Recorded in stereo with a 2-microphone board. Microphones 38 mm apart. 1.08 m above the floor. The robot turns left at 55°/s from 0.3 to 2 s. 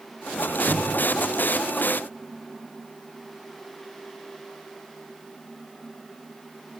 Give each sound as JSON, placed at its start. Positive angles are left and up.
{"t": 0.4, "sound": "a squeak", "azimuth_deg": -110, "distance_m": 2.0}